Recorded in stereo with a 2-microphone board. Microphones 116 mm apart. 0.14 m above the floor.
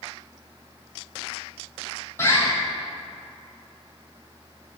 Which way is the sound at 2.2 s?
25° left (ahead or behind).